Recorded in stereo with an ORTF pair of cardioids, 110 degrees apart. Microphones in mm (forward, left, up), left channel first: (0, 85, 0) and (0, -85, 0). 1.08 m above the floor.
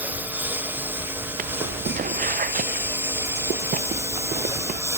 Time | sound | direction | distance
0.0 | a lawn mower | 10° right | ?
1.4 | footsteps | 55° right | ?